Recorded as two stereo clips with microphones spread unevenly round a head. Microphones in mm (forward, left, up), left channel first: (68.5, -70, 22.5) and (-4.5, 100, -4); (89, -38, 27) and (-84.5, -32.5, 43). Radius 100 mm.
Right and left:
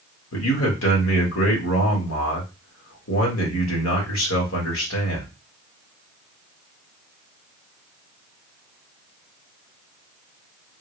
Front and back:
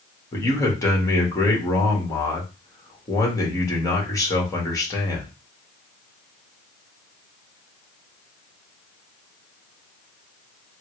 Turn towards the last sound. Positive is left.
turn(degrees=-70)